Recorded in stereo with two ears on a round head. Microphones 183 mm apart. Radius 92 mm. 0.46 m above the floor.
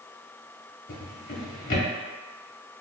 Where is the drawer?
40° left (ahead or behind), 0.9 m.